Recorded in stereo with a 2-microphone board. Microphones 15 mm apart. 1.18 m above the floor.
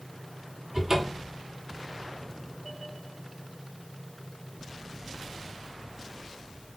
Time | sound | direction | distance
0.7 | a cupboard door | 35° right (ahead or behind) | 3.5 m